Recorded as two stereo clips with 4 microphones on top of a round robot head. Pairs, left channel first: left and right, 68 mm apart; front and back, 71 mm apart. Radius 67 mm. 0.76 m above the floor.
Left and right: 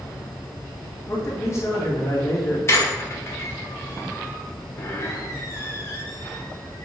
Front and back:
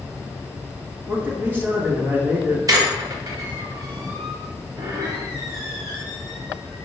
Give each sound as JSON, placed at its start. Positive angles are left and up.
{"t": 1.1, "sound": "a man speaking", "azimuth_deg": 125, "distance_m": 1.5}
{"t": 2.7, "sound": "a squeak", "azimuth_deg": 140, "distance_m": 1.0}